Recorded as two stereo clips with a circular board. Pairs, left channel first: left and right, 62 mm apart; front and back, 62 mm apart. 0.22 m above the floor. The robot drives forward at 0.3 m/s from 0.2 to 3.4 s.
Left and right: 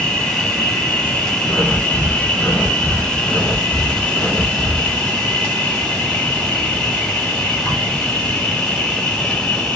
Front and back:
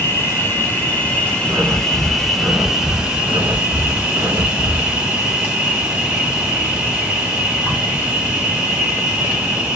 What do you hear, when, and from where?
0.0 s an insect: 20° left, 1.1 m; by 9.8 s 140° left, 1.0 m
1.5 s breathing: 120° left, 0.9 m; by 5.0 s 145° left, 1.3 m